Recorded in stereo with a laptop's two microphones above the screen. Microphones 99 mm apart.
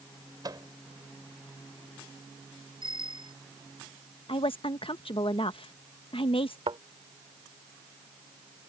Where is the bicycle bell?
50° right (ahead or behind).